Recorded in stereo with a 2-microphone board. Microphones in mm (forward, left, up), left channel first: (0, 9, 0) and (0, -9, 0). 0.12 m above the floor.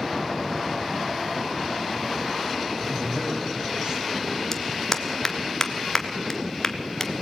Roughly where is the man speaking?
Right.